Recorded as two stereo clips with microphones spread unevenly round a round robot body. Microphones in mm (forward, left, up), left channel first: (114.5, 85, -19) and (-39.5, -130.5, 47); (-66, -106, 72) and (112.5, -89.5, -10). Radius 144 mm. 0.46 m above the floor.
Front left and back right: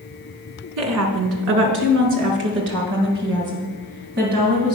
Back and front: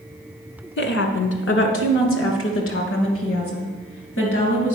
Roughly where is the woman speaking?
Behind.